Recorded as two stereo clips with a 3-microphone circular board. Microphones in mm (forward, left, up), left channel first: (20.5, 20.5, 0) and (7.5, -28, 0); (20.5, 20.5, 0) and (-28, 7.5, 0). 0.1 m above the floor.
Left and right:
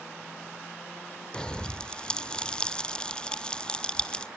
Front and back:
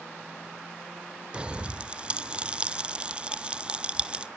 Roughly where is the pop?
Behind left.